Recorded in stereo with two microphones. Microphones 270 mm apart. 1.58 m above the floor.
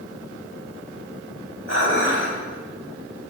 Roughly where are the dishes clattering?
Left.